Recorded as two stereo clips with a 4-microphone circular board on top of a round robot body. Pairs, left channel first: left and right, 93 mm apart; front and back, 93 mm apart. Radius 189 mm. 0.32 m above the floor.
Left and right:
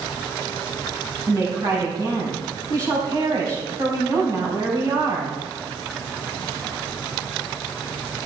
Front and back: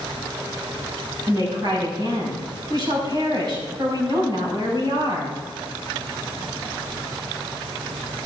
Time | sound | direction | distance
1.3 | a woman speaking | 135° right | 4.5 m